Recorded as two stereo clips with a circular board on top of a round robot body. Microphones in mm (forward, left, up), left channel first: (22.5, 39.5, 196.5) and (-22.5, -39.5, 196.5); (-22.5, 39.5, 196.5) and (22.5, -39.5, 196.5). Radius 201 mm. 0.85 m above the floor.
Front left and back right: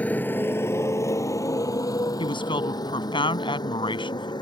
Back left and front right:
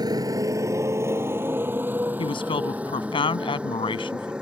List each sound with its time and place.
0.0 s a motorcycle: 15° right; by 4.4 s 20° left
2.2 s a woman speaking: 90° left